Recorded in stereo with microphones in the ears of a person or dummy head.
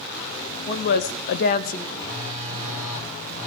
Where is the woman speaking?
30° left (ahead or behind), 0.9 m; by 1.9 s 45° left (ahead or behind), 1.2 m.